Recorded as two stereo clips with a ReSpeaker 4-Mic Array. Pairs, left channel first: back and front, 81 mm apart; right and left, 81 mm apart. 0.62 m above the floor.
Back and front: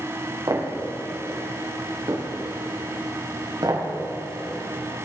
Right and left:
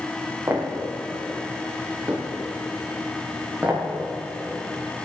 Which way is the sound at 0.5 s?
40° left.